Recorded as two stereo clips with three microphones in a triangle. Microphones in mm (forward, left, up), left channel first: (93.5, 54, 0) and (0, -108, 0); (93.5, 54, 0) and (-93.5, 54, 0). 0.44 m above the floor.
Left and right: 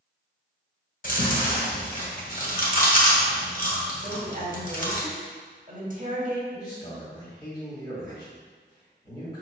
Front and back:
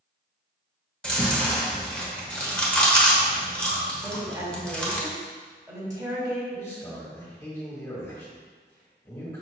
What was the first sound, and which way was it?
Chewing, 85° left.